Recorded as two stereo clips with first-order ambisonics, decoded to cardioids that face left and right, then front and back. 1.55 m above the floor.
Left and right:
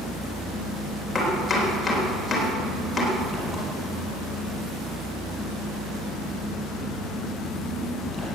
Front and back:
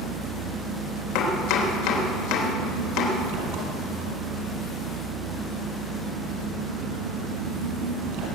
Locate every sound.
0.0 s an engine running: 175° left, 5 m
1.1 s chopping: 10° left, 3 m